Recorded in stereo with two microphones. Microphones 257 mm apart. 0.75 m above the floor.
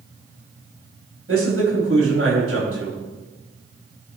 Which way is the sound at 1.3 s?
60° right (ahead or behind).